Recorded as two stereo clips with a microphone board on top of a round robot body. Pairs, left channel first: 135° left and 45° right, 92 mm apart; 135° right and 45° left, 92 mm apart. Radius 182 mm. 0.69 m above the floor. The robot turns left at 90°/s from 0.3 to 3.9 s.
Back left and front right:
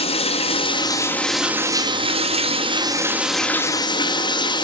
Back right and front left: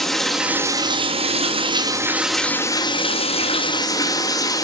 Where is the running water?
140° left, 0.8 m; by 4.7 s 175° left, 0.8 m.